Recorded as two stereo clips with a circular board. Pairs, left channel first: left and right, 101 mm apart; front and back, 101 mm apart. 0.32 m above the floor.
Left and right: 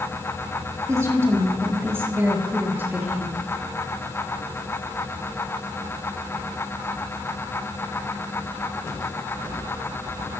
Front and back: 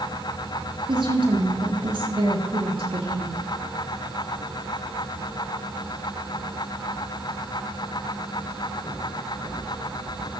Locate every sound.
0.9 s a woman speaking: 150° right, 6.5 m; by 3.4 s 165° right, 6.5 m